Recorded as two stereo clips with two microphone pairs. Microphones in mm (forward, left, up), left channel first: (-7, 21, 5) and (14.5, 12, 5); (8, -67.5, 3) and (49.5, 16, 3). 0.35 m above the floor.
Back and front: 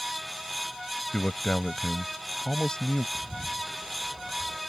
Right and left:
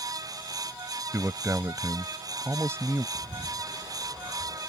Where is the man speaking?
120° left.